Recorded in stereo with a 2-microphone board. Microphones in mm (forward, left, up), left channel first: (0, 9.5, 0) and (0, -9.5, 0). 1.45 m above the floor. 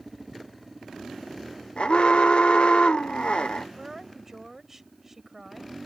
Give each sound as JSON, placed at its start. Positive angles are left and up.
{"t": 1.8, "sound": "an alarm", "side_deg": 60}
{"t": 3.8, "sound": "a woman speaking", "side_deg": -15}